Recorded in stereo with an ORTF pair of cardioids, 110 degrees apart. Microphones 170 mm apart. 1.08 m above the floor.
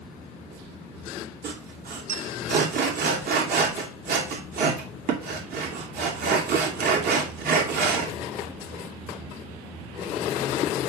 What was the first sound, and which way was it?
Sawing, 65° right.